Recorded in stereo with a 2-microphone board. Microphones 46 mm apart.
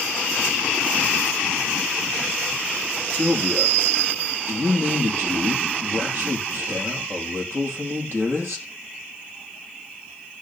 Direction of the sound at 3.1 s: 65° right (ahead or behind).